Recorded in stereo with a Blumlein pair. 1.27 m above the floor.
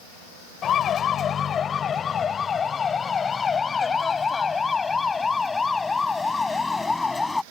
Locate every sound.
0.6 s a siren: 25° left; by 7.4 s 10° left